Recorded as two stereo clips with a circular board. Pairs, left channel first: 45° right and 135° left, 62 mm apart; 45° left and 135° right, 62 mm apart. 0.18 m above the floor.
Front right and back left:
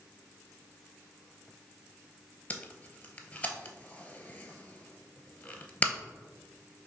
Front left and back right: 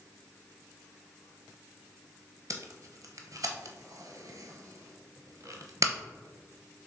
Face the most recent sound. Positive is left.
turn(degrees=-115)